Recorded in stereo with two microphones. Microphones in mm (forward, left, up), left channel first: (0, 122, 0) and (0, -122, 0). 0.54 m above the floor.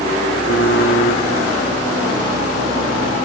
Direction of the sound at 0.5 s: 85° left.